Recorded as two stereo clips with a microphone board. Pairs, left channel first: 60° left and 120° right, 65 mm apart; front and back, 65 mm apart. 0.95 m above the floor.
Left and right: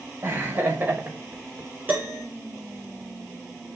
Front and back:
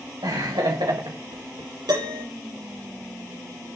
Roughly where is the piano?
Behind.